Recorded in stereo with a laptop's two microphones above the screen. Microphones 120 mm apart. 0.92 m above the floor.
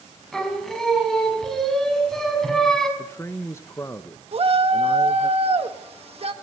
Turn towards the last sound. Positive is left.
turn(degrees=-50)  # may be behind; listen again after turning